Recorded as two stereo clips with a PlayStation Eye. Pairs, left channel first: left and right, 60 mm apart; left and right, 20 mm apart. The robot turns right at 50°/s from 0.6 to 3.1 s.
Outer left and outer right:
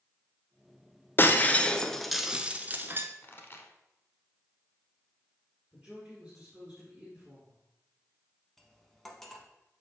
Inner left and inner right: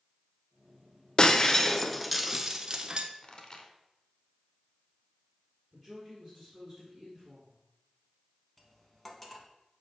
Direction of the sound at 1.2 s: 35° left (ahead or behind).